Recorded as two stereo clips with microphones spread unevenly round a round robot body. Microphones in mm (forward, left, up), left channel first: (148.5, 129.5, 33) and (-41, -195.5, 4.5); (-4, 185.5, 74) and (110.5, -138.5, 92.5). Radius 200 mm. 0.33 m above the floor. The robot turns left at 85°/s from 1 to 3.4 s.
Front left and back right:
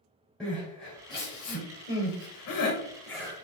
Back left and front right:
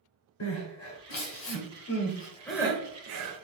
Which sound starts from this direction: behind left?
Crying, at 0.4 s.